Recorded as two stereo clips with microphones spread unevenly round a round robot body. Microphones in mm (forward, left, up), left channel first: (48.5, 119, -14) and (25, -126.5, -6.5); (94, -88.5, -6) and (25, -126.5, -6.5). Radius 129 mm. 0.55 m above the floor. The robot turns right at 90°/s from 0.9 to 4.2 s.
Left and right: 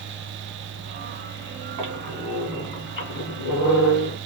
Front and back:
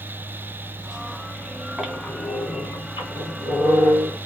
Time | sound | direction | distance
1.8 | a squeak | 70° right | 2 m